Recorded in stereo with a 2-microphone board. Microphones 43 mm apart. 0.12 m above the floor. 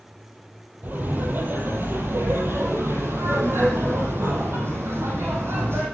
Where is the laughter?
45° right (ahead or behind), 4 m; by 5.8 s 65° right (ahead or behind), 6 m.